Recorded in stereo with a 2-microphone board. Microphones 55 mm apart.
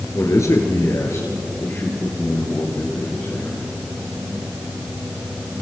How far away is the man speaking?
About 2.5 m.